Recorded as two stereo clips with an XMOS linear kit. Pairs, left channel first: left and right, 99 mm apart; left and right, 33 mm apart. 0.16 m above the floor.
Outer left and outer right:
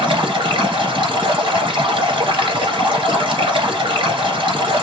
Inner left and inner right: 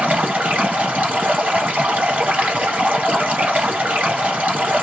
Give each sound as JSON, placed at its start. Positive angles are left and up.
{"t": 0.0, "sound": "running water", "side_deg": -60, "distance_m": 1.8}